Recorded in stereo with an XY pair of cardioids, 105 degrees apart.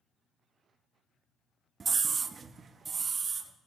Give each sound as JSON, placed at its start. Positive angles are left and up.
{"t": 1.8, "sound": "a scream", "azimuth_deg": -40, "distance_m": 0.5}